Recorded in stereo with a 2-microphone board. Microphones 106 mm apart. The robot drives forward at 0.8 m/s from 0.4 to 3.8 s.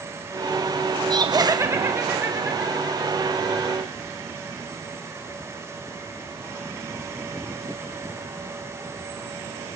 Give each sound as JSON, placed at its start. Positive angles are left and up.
{"t": 1.1, "sound": "laughter", "side_deg": -45, "distance_m": 0.7}